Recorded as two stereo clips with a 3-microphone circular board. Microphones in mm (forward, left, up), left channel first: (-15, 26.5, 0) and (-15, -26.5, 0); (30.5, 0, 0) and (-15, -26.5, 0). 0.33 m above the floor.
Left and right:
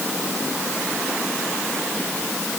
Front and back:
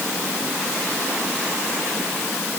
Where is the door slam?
No door slam in this recording.